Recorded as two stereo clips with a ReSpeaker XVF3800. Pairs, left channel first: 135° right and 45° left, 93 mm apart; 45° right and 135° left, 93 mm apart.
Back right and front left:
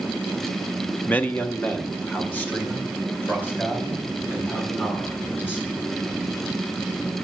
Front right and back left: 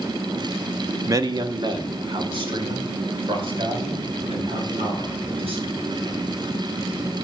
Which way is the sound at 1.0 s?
160° left.